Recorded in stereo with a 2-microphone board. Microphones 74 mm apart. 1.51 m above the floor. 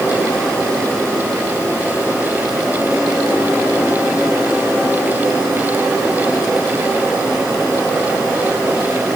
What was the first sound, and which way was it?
Only background noise.